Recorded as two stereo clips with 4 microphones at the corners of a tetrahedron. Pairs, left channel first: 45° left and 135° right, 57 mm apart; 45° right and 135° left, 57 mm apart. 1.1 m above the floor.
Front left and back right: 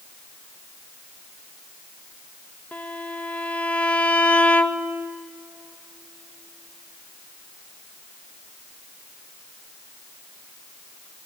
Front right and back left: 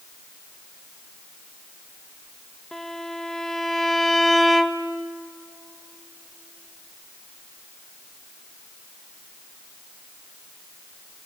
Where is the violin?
25° left, 0.9 m.